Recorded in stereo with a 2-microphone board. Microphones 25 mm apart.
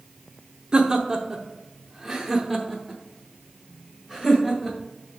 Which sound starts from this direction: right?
Laughter, at 0.7 s.